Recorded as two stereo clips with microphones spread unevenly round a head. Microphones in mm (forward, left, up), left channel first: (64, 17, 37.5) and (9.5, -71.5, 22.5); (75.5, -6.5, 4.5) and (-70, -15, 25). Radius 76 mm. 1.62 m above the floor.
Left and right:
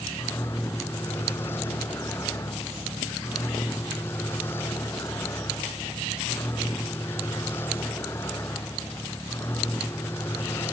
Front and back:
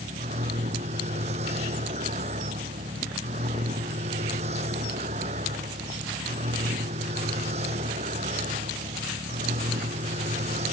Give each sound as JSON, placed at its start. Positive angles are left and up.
{"t": 0.0, "sound": "a vehicle", "azimuth_deg": 135}